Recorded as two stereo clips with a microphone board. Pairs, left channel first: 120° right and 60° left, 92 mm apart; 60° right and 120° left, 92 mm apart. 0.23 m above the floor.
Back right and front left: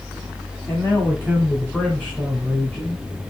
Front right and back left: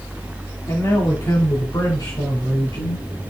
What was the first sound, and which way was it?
A man speaking, 70° right.